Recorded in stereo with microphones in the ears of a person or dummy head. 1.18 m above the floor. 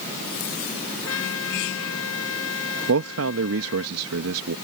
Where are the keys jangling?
I don't hear keys jangling.